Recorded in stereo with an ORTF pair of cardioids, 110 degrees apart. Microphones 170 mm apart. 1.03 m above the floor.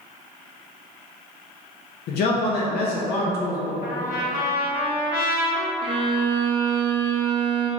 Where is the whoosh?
No whoosh in this recording.